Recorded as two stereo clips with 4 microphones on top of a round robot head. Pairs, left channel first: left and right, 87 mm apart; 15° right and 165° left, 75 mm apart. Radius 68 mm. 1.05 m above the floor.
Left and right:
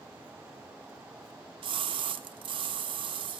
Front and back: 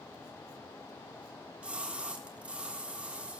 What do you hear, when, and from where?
1.6 s a splash: 115° right, 1.5 m